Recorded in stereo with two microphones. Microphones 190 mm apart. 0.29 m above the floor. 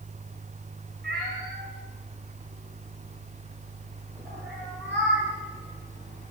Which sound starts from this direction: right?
A cat meowing, at 1.0 s.